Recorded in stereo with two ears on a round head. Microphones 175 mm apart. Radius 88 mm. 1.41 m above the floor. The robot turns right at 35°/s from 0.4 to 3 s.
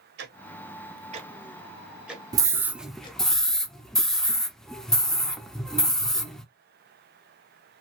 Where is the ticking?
55° right (ahead or behind), 0.7 m; by 3.2 s 25° left (ahead or behind), 0.7 m.